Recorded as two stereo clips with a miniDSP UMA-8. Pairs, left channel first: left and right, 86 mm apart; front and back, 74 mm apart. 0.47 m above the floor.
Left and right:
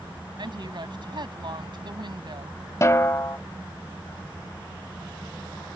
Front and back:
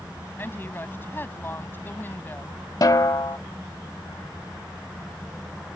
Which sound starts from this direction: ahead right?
A woman speaking, at 0.4 s.